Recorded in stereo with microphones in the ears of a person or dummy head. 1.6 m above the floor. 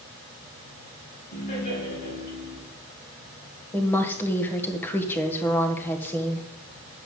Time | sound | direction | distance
1.3 | laughter | 55° left (ahead or behind) | 7 m
3.7 | a woman speaking | 10° left (ahead or behind) | 1.5 m